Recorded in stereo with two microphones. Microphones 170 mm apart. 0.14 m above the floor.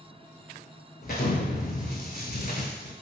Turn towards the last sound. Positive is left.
turn(degrees=65)  # may be behind; listen again after turning